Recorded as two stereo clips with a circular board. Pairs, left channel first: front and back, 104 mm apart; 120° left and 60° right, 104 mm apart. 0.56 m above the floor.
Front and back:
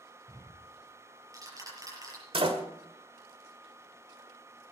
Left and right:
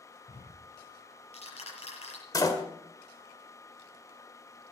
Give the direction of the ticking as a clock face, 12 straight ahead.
8 o'clock.